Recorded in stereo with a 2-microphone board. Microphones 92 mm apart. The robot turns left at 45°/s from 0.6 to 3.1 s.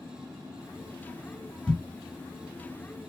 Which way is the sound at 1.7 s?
10° left (ahead or behind).